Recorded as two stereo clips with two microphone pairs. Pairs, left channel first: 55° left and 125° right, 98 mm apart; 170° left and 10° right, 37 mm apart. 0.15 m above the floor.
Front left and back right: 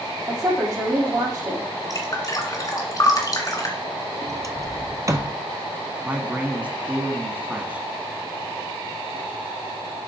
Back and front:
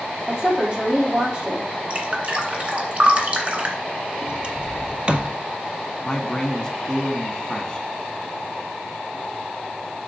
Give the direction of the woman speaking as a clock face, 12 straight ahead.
2 o'clock.